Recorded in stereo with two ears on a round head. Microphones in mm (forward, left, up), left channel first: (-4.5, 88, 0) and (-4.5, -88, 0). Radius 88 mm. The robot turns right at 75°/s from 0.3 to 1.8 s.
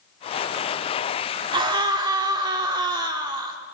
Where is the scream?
25° right (ahead or behind), 1.4 m.